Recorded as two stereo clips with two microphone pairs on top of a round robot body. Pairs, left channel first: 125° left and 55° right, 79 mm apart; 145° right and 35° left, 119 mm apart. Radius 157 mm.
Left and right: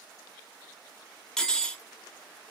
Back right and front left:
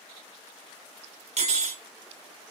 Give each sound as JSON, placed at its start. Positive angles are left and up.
{"t": 1.4, "sound": "cutlery clinking", "azimuth_deg": 40, "distance_m": 0.7}